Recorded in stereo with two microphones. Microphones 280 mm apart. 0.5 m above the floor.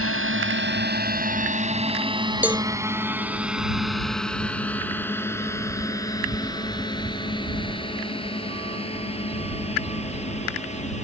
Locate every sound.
0.0 s a drone: 50° right (ahead or behind); by 11.1 s 25° left (ahead or behind)
2.4 s a cowbell: 5° right (ahead or behind)